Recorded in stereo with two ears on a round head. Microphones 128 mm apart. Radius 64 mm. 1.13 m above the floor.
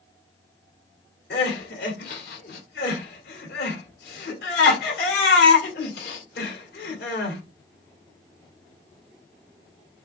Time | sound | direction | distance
1.3 | crying | 80° left | 2.0 m